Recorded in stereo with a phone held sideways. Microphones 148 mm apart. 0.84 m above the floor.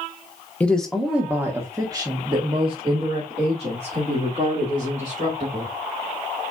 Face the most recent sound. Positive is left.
turn(degrees=-55)  # may be behind; listen again after turning